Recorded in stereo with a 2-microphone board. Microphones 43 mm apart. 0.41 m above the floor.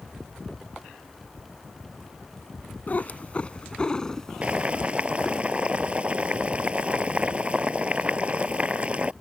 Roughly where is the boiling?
Right.